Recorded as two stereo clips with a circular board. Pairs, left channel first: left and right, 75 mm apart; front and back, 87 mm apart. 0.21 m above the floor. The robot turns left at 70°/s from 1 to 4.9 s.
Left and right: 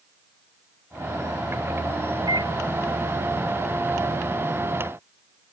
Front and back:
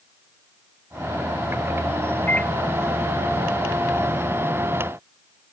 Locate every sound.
2.3 s a microwave: 65° right; by 2.5 s 85° right